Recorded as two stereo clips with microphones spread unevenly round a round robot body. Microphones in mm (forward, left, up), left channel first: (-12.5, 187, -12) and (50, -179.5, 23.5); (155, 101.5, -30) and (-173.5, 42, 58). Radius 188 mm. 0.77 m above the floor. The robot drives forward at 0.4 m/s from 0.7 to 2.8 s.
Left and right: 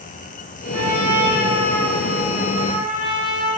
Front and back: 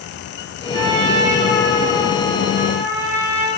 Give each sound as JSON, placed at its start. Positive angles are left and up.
{"t": 0.7, "sound": "a trumpet", "azimuth_deg": -160, "distance_m": 5.5}